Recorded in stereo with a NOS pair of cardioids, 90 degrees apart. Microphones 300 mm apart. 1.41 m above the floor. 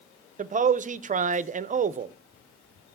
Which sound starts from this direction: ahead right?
A man speaking, at 0.4 s.